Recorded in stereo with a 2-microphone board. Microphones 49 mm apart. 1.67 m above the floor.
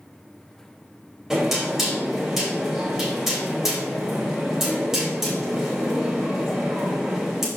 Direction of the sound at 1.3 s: 10° right (ahead or behind).